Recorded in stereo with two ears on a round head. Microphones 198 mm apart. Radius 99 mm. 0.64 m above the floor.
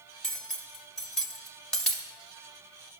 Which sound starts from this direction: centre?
Cutlery clinking, at 0.2 s.